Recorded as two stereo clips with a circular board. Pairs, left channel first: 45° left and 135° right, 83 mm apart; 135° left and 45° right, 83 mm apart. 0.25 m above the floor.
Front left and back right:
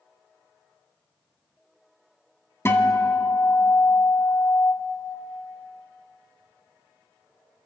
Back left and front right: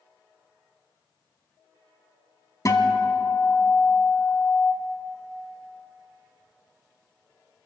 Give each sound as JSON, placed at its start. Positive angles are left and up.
{"t": 2.6, "sound": "a guitar", "azimuth_deg": 95, "distance_m": 1.1}